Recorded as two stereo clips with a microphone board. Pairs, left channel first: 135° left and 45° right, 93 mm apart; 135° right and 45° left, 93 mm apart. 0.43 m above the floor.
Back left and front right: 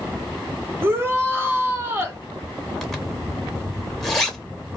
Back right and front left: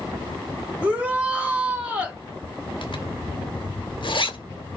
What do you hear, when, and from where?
0.8 s a shout: 15° right, 0.9 m
2.8 s a zipper: 140° right, 0.7 m